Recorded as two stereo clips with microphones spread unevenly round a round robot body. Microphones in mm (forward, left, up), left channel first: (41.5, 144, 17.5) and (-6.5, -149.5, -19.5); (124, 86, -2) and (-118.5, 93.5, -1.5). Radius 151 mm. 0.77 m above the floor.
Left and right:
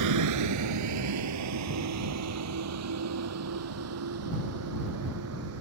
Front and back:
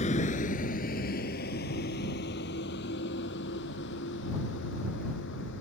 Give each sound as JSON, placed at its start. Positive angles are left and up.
{"t": 0.0, "sound": "a vehicle", "azimuth_deg": -70}